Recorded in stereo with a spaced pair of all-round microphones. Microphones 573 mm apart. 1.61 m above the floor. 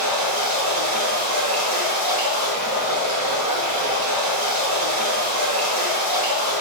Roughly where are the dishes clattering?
I don't hear dishes clattering.